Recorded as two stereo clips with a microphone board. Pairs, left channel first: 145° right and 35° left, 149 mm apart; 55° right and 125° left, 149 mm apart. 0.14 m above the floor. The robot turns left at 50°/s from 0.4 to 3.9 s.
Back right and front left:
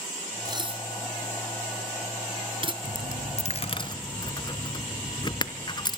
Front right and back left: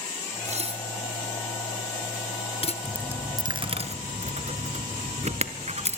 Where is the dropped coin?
150° right, 1.2 m; by 6.0 s 160° left, 1.2 m.